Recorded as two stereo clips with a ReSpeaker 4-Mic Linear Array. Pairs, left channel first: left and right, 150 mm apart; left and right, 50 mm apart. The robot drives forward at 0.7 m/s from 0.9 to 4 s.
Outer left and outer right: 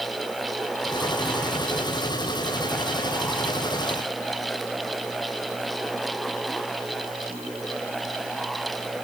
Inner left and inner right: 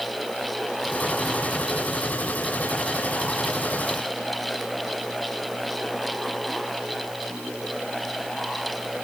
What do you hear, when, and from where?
Only background noise.